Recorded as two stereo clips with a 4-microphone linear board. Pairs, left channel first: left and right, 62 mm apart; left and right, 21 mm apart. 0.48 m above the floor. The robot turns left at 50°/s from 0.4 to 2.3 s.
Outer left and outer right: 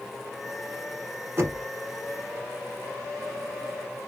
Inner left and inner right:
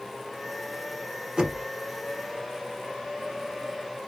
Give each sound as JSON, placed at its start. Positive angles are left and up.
{"t": 1.4, "sound": "knocking", "side_deg": -40, "distance_m": 1.1}